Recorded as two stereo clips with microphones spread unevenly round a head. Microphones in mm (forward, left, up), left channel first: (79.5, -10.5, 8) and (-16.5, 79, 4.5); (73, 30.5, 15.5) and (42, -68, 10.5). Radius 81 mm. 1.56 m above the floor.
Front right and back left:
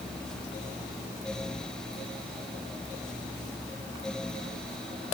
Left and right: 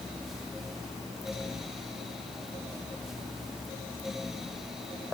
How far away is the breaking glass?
No breaking glass in this recording.